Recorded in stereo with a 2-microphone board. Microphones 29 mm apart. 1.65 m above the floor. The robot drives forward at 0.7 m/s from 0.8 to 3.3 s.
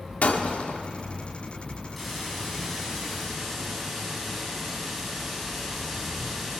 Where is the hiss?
5° left (ahead or behind), 9 m; by 6.6 s 10° left (ahead or behind), 8 m.